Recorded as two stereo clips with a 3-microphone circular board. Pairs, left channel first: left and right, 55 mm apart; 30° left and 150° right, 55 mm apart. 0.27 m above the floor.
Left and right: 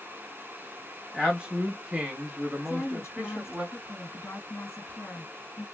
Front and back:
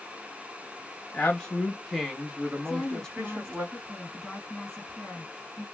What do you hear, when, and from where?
1.1 s a man speaking: 20° right, 1.1 m; by 3.6 s 155° right, 1.4 m
2.6 s a woman speaking: 105° left, 1.9 m